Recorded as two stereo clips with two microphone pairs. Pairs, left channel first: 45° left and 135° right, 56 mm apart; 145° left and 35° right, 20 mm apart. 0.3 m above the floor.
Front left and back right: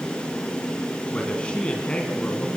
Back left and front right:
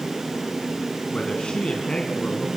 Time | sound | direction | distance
1.1 | a man speaking | 115° left | 2.5 m